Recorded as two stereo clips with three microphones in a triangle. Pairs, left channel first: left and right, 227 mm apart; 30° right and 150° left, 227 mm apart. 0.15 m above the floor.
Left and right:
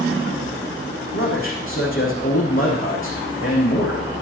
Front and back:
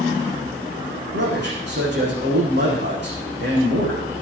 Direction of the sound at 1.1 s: 115° left.